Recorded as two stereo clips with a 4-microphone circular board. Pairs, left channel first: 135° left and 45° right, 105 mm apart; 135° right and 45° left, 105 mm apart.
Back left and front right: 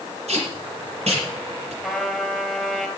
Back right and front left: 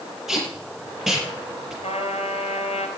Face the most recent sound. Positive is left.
turn(degrees=-130)